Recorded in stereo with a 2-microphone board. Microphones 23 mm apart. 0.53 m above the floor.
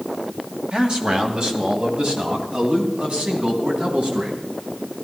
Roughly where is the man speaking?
Right.